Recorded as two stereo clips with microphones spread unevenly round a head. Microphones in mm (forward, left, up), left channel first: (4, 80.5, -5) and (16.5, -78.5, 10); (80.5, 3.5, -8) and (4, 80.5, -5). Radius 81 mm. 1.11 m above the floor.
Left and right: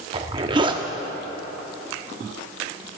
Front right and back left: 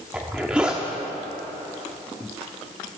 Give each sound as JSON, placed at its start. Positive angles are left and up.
{"t": 0.1, "sound": "a zipper", "azimuth_deg": -145, "distance_m": 0.9}